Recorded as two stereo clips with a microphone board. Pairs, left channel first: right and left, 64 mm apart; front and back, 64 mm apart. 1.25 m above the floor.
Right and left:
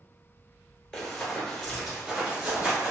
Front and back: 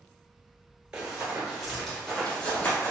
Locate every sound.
0.9 s running footsteps: 135° right, 1.2 m; by 2.9 s 35° left, 1.4 m